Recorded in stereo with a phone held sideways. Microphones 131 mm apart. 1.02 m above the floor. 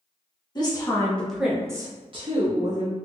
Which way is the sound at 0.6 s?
35° left (ahead or behind).